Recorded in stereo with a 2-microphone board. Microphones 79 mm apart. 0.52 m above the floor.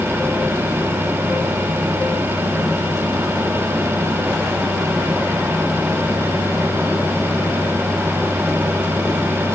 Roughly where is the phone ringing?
I don't hear a phone ringing.